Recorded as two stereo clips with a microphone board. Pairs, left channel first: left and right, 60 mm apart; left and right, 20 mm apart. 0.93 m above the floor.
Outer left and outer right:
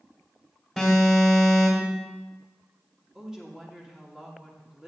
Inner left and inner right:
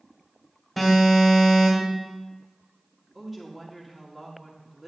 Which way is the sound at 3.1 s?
10° right (ahead or behind).